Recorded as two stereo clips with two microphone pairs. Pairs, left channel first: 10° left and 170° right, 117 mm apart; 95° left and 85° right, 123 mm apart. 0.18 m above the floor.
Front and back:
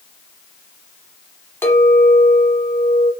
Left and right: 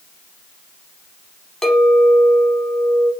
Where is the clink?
15° left, 1.0 m.